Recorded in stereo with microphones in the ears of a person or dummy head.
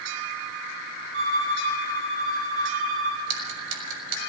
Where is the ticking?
75° right (ahead or behind), 5 m.